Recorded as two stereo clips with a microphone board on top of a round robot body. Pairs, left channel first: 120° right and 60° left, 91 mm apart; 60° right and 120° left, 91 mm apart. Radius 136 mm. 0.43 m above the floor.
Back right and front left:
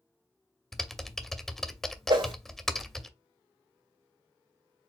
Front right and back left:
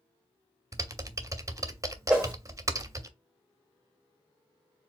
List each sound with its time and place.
0.7 s typing on a keyboard: 155° left, 0.8 m
2.1 s a whoosh: 40° left, 2.5 m